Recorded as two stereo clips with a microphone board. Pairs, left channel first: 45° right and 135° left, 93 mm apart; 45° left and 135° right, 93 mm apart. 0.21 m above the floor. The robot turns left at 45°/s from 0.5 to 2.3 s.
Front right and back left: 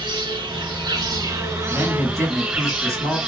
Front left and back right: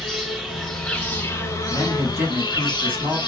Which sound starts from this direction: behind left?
An insect, at 0.0 s.